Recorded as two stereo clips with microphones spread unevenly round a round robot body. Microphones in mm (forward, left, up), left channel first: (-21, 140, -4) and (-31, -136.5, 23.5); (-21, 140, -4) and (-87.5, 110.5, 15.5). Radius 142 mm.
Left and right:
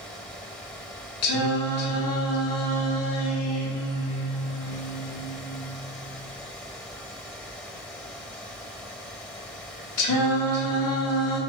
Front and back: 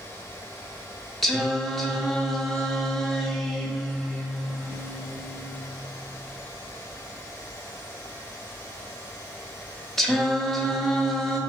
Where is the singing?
105° left, 0.7 m.